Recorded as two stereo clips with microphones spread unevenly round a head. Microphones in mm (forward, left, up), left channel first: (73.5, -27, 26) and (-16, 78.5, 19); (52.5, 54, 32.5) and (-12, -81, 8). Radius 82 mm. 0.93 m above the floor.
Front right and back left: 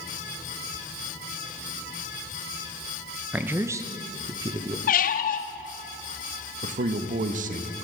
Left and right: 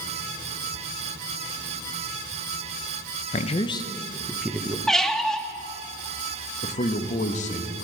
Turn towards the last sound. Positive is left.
turn(degrees=110)